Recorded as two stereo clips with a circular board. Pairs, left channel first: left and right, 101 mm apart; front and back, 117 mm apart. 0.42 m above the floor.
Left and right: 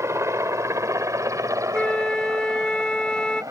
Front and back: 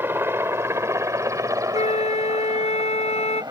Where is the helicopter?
125° right; by 3.5 s 135° right.